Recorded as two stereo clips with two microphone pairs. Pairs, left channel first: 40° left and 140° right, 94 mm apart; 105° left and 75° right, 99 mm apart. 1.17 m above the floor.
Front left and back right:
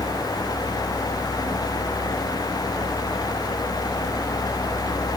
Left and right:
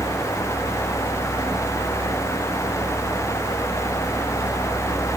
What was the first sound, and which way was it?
Only background noise.